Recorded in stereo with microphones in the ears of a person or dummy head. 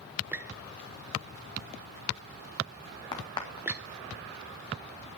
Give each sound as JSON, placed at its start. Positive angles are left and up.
{"t": 0.3, "sound": "a squeak", "side_deg": -10, "distance_m": 0.5}
{"t": 3.1, "sound": "a crack", "side_deg": 20, "distance_m": 2.0}